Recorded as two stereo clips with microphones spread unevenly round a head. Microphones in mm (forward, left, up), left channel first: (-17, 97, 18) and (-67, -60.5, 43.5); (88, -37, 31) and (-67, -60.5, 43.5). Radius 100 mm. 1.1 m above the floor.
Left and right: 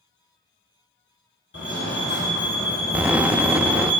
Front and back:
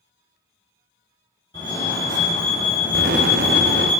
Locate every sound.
1.5 s a fire alarm: 80° left, 5.5 m
2.9 s an explosion: 175° left, 0.6 m